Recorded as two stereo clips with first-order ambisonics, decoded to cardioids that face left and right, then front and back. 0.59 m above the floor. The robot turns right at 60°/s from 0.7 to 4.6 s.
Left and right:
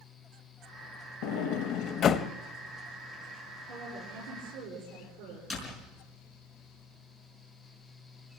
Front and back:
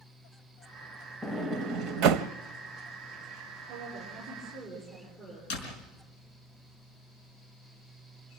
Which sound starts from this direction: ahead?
A door slam, at 5.5 s.